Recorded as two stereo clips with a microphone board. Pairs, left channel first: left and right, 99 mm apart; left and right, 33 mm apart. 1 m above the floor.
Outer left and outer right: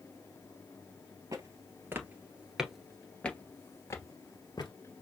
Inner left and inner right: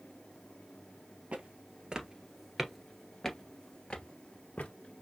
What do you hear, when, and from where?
1.3 s footsteps: 35° right (ahead or behind), 1.3 m; by 4.7 s 45° left (ahead or behind), 1.4 m